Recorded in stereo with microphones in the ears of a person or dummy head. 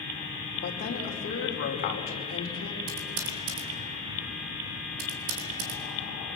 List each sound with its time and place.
0.6 s a woman speaking: 40° left (ahead or behind), 3.5 m
2.9 s typing on a keyboard: 75° right (ahead or behind), 4 m